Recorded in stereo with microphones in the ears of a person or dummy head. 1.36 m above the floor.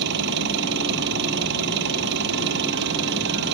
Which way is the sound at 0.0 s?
55° right (ahead or behind).